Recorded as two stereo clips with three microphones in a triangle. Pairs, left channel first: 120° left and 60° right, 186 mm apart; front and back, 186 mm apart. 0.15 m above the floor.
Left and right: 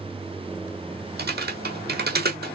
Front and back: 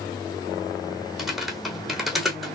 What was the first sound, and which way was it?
Typing on a keyboard, 90° right.